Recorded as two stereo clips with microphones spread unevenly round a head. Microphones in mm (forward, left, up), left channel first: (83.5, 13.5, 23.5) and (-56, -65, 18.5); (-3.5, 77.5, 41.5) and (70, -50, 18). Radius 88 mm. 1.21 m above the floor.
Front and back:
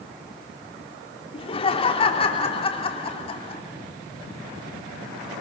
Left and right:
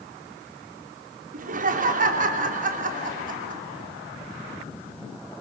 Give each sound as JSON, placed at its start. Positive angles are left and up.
{"t": 1.3, "sound": "laughter", "azimuth_deg": -25, "distance_m": 2.5}